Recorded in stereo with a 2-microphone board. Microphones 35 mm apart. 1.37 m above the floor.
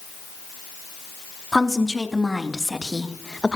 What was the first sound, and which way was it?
A woman speaking, centre (ahead or behind).